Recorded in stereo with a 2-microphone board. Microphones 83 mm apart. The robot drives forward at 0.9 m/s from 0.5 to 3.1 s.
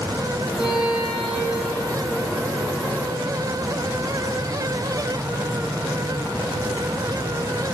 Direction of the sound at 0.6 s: 75° right (ahead or behind).